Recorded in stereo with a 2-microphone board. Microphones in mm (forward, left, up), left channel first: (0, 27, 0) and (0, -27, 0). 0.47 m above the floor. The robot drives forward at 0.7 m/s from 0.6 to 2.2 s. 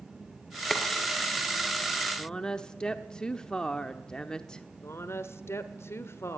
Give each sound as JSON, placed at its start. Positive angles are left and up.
{"t": 0.7, "sound": "boiling", "side_deg": 5, "distance_m": 2.5}
{"t": 2.2, "sound": "a woman speaking", "side_deg": 15, "distance_m": 0.9}
{"t": 4.8, "sound": "a woman speaking", "side_deg": 50, "distance_m": 1.2}